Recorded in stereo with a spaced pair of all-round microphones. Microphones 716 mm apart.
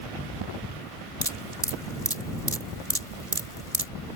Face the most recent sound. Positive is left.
turn(degrees=-50)  # may be behind; listen again after turning